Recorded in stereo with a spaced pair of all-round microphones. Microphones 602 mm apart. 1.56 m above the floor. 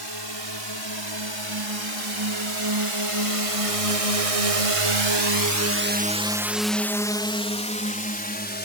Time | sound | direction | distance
0.0 | a drone | 40° right (ahead or behind) | ?